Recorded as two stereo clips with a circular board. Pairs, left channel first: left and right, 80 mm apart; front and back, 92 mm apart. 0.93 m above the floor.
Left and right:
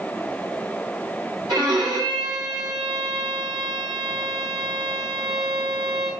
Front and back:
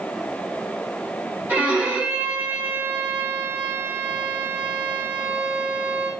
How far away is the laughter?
I don't hear laughter.